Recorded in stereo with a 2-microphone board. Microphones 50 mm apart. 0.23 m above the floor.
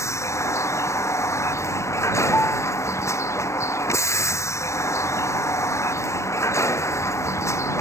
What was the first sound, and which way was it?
A vehicle, 80° left.